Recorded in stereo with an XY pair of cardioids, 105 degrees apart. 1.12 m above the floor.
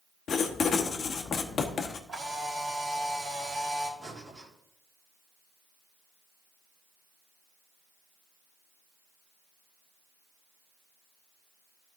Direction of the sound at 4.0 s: 25° right.